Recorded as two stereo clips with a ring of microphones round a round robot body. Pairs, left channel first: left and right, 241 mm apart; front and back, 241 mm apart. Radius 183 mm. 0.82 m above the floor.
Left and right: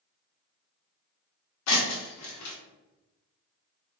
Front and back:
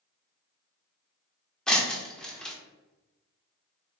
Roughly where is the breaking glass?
Left.